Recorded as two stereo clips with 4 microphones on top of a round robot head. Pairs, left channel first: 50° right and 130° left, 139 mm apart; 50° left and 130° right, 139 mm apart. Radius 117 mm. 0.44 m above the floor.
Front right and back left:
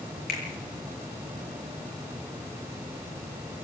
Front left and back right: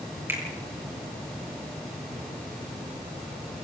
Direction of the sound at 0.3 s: 55° right.